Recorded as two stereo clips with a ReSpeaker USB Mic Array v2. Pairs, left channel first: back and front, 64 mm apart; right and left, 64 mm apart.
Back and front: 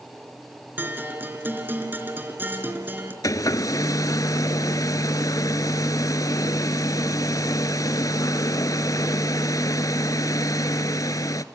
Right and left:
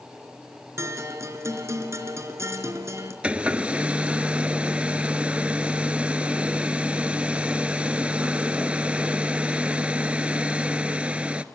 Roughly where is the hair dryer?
Behind.